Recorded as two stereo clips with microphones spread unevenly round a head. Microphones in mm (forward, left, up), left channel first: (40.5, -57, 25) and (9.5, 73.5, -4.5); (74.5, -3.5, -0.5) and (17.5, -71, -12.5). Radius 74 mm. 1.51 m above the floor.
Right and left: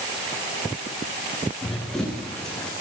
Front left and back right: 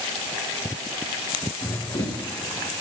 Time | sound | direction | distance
1.6 | running footsteps | 10° left | 9 m